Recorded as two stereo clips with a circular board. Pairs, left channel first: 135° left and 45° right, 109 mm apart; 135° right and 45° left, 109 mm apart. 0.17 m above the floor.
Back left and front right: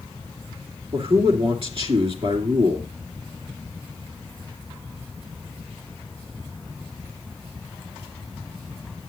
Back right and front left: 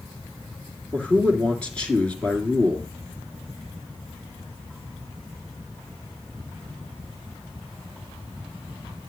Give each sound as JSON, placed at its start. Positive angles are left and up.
{"t": 0.9, "sound": "a man speaking", "azimuth_deg": -55, "distance_m": 2.5}